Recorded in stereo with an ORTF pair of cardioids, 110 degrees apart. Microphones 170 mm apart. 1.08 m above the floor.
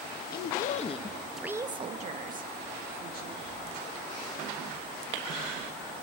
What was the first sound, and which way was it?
A woman speaking, 60° left.